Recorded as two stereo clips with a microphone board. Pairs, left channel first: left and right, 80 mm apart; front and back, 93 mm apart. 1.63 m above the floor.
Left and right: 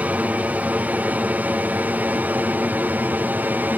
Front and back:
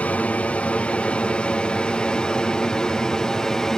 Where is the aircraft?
50° right; by 3.8 s 75° right.